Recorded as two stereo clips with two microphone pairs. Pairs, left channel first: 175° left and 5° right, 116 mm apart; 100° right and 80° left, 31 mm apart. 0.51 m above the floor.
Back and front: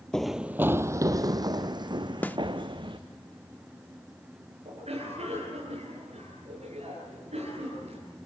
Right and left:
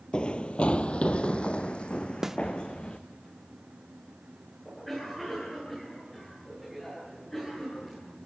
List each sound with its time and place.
0.1 s running footsteps: 110° right, 0.5 m; by 3.0 s 45° right, 2 m
2.2 s a snare drum: 135° left, 0.6 m
4.7 s a cough: 20° right, 9 m